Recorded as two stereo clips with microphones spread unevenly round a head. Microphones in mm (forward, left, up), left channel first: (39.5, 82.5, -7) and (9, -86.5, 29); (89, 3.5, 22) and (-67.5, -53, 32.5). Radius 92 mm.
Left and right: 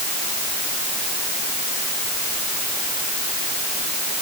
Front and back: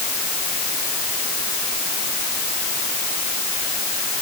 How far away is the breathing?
No breathing in this recording.